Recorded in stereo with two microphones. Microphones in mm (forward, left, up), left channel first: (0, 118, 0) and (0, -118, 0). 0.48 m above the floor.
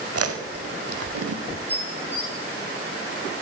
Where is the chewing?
85° right, 0.6 m.